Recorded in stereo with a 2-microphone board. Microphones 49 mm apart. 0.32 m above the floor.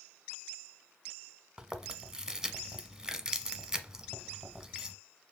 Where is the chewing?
10° right (ahead or behind), 0.8 m.